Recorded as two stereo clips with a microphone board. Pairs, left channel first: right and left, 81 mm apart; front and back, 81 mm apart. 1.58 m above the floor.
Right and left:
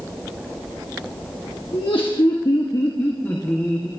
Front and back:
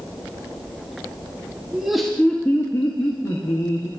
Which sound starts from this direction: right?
Laughter, at 1.7 s.